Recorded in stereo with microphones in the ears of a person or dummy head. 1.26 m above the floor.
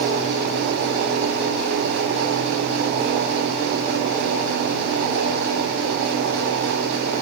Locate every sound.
Only background noise.